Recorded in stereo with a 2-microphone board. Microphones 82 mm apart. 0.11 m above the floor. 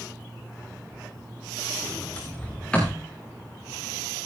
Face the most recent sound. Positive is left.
turn(degrees=15)  # may be behind; listen again after turning